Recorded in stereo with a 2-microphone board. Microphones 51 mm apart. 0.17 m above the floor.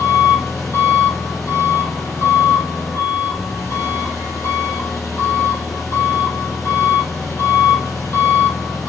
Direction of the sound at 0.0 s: 65° left (ahead or behind).